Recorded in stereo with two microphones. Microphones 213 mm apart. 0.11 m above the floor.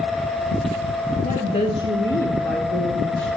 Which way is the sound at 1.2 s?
35° left (ahead or behind).